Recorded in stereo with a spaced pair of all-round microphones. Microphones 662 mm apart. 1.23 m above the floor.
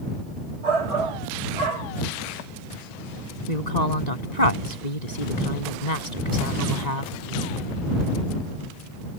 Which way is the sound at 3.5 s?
85° left.